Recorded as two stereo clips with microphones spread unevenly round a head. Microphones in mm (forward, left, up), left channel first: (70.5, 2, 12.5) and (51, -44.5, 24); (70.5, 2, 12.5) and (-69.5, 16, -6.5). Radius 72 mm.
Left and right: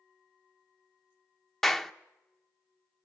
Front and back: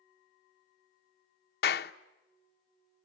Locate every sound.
1.6 s a clap: 10° right, 0.9 m